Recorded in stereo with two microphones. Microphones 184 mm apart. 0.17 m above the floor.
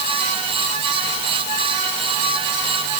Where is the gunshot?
No gunshot in this recording.